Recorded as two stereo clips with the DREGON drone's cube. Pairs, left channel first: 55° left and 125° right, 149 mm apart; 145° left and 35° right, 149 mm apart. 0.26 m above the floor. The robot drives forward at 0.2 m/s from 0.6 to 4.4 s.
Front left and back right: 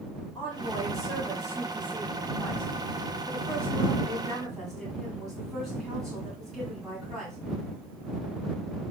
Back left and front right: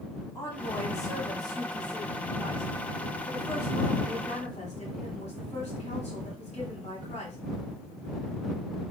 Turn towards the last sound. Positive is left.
turn(degrees=145)